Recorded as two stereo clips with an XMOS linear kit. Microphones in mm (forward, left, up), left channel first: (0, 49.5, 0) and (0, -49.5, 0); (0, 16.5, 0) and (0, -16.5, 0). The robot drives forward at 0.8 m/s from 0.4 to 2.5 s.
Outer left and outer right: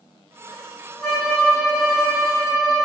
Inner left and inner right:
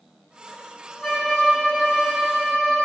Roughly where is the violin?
Centre.